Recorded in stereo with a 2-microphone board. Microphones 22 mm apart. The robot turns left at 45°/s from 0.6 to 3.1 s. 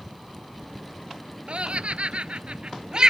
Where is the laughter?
60° right (ahead or behind); by 3.1 s 35° right (ahead or behind).